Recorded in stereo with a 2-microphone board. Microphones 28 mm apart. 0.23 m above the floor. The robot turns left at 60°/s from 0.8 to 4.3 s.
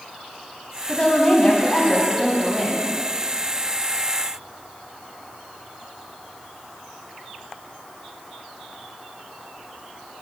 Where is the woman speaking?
85° left, 1.2 m; by 2.9 s 40° right, 1.2 m.